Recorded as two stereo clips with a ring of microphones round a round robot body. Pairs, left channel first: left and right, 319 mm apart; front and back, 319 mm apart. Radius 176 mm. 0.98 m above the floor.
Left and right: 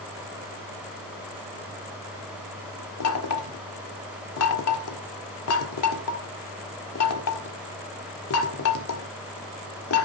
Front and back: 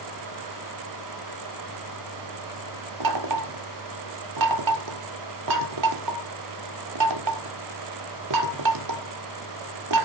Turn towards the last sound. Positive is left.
turn(degrees=140)